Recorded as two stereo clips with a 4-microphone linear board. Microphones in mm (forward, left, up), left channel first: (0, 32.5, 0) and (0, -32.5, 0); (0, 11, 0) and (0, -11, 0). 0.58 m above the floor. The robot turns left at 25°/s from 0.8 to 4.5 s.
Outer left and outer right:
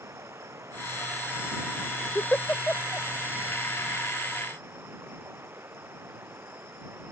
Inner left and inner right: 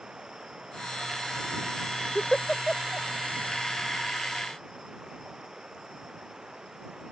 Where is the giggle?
35° left (ahead or behind); by 3.1 s 15° left (ahead or behind).